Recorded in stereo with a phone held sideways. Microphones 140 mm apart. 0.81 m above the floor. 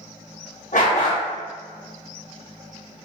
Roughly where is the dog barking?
Left.